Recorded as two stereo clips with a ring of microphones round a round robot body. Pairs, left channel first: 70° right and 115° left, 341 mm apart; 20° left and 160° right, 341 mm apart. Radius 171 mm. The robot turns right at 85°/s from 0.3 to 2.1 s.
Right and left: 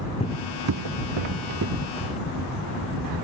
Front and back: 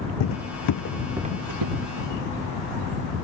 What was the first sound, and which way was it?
Footsteps, 5° left.